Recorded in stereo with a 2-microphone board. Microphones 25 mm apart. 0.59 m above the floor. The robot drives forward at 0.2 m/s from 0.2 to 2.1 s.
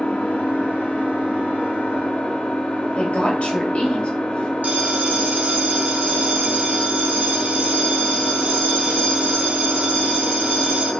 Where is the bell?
65° right (ahead or behind), 0.9 m.